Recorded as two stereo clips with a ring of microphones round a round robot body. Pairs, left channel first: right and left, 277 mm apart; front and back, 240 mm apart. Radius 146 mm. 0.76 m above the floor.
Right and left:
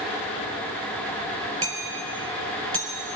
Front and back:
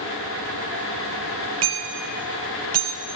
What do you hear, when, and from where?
1.6 s hammering: 165° left, 5 m